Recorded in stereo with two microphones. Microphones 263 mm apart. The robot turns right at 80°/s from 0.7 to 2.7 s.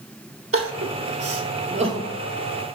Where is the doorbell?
No doorbell in this recording.